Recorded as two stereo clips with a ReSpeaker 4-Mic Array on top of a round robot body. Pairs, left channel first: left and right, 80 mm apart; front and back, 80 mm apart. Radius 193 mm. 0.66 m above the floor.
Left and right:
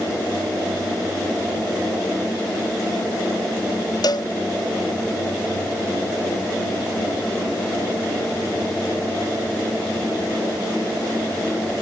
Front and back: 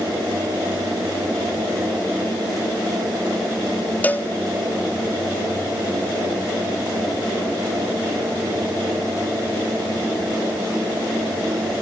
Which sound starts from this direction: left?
A cowbell, at 4.0 s.